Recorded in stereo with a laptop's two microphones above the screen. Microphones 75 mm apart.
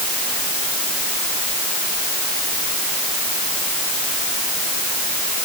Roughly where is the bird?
I don't hear a bird.